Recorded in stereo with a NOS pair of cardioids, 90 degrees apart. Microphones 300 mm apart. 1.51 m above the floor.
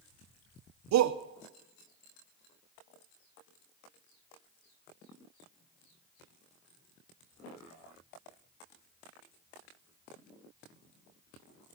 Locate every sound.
0.9 s a shout: 60° right, 0.9 m